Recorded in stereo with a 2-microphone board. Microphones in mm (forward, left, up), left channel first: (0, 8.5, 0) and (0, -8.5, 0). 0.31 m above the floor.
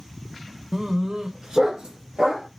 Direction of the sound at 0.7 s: 35° right (ahead or behind).